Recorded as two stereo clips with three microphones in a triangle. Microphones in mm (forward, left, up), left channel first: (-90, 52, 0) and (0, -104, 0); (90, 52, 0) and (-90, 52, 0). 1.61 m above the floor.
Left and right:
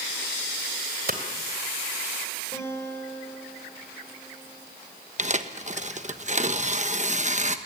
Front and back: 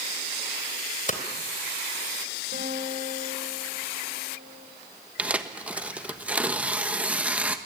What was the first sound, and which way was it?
Hammering, 35° right.